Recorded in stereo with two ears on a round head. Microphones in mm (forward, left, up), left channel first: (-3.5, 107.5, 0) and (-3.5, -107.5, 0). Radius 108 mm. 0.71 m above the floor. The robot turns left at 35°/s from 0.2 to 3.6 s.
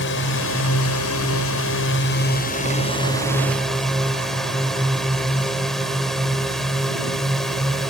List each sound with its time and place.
0.0 s a drone: 120° left; by 7.9 s straight ahead